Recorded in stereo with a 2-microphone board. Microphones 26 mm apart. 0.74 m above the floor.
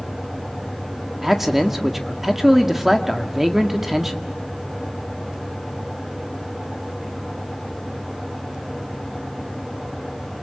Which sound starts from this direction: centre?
A man speaking, at 1.2 s.